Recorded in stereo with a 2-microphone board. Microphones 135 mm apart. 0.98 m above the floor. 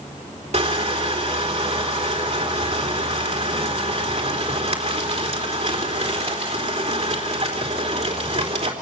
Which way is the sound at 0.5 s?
55° right (ahead or behind).